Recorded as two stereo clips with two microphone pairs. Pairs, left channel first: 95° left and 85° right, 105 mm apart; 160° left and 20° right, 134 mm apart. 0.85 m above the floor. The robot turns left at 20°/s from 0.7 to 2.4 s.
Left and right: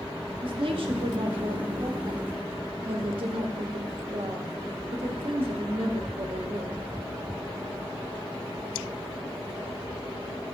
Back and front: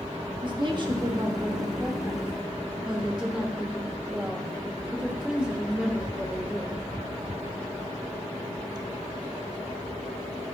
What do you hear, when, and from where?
0.4 s a woman speaking: 65° right, 1.3 m; by 6.8 s 100° right, 1.3 m